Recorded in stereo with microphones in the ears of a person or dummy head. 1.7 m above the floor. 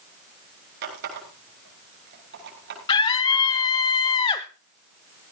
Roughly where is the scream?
Left.